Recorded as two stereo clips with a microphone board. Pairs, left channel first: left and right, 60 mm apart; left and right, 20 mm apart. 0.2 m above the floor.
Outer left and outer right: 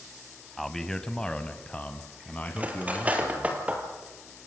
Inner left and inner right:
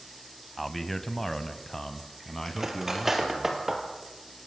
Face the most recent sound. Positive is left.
turn(degrees=-25)  # may be behind; listen again after turning